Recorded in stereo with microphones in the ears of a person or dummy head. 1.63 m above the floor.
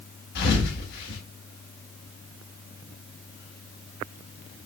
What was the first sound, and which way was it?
A thud, 60° left (ahead or behind).